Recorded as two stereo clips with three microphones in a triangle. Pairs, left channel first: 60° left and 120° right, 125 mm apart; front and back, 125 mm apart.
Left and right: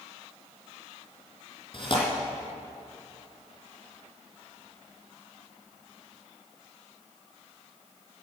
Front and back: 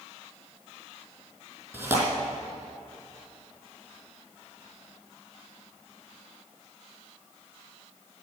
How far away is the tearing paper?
About 4 m.